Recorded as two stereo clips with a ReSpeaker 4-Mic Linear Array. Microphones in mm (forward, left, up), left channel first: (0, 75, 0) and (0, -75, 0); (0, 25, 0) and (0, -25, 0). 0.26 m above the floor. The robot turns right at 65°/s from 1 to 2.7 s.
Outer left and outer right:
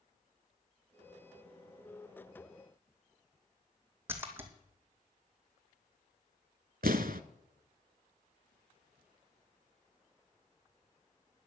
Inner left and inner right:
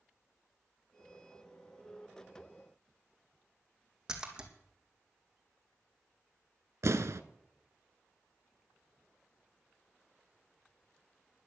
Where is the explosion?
75° right (ahead or behind), 0.7 m.